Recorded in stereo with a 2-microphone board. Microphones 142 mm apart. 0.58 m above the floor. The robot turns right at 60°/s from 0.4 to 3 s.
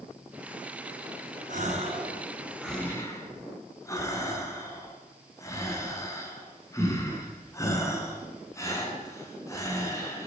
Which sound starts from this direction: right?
A gasp, at 1.5 s.